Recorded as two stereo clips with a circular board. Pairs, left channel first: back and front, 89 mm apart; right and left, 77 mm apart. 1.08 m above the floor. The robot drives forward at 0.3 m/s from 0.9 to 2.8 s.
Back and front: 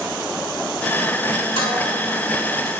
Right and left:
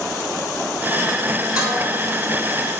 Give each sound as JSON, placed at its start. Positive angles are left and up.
{"t": 1.6, "sound": "dishes clattering", "azimuth_deg": 170, "distance_m": 2.5}